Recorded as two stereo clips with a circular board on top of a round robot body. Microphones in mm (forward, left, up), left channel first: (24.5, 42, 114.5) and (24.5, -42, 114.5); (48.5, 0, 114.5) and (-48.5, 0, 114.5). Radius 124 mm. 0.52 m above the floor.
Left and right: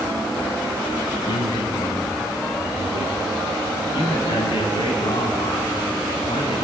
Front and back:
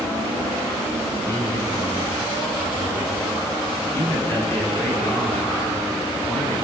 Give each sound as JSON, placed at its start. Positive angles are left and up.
{"t": 1.2, "sound": "a man speaking", "azimuth_deg": 65, "distance_m": 7.5}
{"t": 3.8, "sound": "a man speaking", "azimuth_deg": 70, "distance_m": 6.0}